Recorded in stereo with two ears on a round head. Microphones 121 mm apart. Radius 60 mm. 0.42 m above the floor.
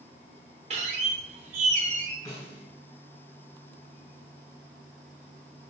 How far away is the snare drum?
About 1.8 m.